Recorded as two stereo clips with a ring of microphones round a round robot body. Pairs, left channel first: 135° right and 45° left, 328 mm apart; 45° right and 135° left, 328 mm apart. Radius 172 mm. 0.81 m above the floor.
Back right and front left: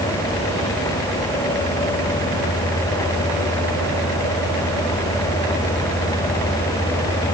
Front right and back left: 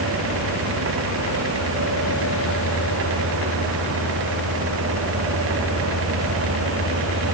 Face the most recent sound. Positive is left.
No sound to turn to.